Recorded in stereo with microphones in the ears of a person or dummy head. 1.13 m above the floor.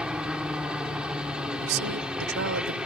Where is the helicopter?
5° right (ahead or behind).